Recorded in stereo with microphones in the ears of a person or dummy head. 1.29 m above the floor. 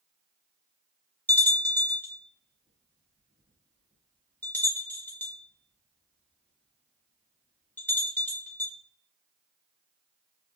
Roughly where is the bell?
Centre.